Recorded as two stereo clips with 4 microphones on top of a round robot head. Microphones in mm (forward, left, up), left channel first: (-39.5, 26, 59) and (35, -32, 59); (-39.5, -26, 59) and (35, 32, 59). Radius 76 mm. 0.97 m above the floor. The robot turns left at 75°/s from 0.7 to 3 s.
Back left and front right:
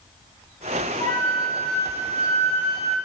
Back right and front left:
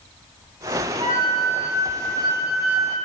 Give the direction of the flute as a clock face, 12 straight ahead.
9 o'clock.